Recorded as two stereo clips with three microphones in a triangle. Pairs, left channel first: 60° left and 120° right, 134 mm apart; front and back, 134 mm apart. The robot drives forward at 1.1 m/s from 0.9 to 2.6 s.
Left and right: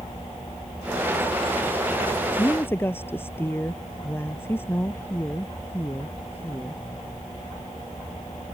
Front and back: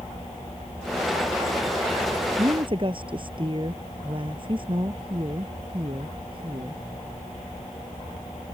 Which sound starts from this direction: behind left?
A woman speaking, at 2.4 s.